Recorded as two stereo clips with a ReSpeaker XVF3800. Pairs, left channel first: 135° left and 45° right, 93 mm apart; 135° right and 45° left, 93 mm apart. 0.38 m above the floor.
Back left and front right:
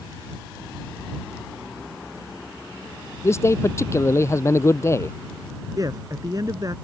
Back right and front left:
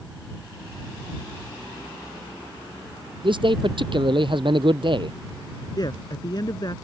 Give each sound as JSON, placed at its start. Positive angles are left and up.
{"t": 3.2, "sound": "a man speaking", "azimuth_deg": 75}
{"t": 5.8, "sound": "a man speaking", "azimuth_deg": -95}